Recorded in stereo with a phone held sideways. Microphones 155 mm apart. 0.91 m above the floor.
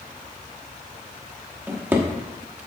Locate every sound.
1.7 s a drawer: 15° right (ahead or behind), 1.0 m